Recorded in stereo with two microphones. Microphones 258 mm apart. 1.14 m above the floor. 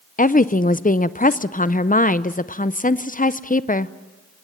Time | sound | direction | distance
0.2 | a woman speaking | 30° left (ahead or behind) | 0.5 m